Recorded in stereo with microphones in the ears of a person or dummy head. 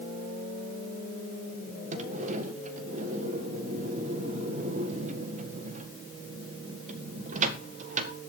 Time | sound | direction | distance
1.9 | a sliding door | 45° right (ahead or behind) | 1.6 m